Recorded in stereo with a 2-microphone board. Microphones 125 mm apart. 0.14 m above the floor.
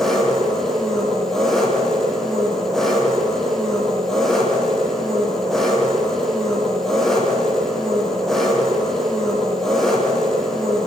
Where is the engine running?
5° left (ahead or behind), 5 m.